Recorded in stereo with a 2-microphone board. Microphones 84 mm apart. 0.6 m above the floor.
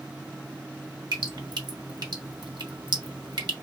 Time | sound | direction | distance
1.1 | dripping | 60° right (ahead or behind) | 1.0 m